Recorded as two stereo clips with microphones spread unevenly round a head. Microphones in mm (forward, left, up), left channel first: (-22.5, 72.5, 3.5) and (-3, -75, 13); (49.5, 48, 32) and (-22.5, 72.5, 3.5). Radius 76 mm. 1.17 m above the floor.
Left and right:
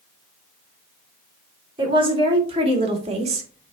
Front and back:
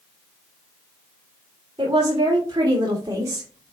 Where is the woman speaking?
140° right, 3 m; by 3.7 s 125° right, 1.4 m.